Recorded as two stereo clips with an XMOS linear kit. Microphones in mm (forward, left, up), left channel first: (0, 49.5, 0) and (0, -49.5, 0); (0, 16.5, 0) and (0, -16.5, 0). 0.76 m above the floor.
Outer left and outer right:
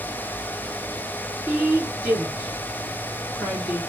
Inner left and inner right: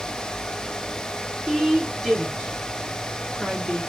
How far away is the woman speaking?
About 2 m.